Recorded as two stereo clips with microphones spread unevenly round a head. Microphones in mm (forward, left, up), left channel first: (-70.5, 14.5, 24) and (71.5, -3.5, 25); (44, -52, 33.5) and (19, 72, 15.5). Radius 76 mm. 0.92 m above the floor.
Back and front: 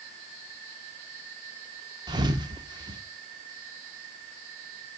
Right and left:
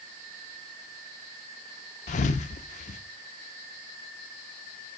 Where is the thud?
70° right, 0.7 m.